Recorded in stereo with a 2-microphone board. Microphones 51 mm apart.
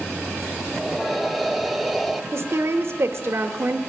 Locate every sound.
0.7 s breathing: centre (ahead or behind), 0.5 m
2.3 s a woman speaking: 55° right (ahead or behind), 1.2 m